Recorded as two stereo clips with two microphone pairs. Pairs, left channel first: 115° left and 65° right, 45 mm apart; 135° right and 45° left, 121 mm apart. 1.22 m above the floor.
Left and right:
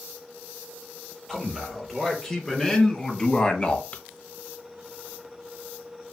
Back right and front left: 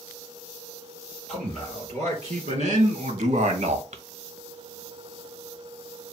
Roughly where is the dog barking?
No dog barking in this recording.